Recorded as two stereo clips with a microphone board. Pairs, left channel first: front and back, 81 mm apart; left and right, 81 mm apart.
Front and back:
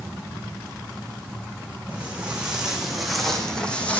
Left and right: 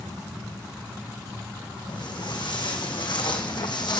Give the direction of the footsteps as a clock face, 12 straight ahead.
8 o'clock.